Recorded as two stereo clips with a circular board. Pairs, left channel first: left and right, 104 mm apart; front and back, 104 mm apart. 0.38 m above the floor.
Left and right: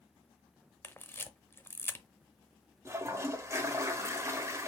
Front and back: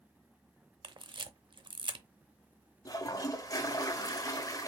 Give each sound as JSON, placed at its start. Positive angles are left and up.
{"t": 0.8, "sound": "a camera shutter", "azimuth_deg": 155, "distance_m": 0.6}
{"t": 2.9, "sound": "a toilet flushing", "azimuth_deg": -40, "distance_m": 0.8}